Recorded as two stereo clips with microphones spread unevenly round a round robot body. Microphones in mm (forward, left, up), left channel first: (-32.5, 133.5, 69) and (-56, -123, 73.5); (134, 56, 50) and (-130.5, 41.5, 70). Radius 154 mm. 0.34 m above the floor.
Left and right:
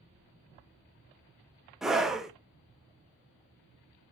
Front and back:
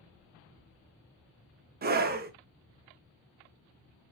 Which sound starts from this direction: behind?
A scream, at 1.8 s.